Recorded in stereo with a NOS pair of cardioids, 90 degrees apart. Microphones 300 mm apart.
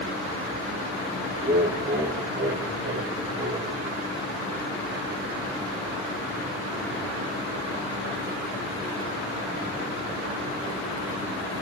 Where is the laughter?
35° right, 5 m; by 3.8 s 45° right, 7.5 m.